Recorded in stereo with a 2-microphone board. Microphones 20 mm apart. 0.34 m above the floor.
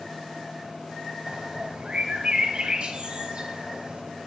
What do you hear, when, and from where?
1.3 s a bird: 55° right (ahead or behind), 1.6 m